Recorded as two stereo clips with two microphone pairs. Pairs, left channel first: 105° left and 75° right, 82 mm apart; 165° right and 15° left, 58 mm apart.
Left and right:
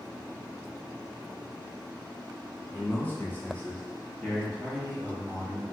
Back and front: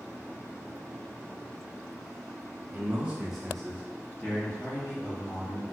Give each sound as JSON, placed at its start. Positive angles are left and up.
{"t": 2.7, "sound": "a man speaking", "azimuth_deg": 60, "distance_m": 0.8}